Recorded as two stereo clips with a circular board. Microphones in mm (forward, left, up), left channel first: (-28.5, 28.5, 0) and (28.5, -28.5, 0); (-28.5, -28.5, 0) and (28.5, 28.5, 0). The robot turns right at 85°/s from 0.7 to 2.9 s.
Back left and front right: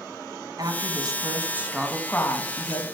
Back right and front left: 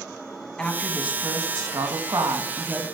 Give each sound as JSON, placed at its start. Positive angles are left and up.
{"t": 0.6, "sound": "a woman speaking", "azimuth_deg": -55, "distance_m": 1.7}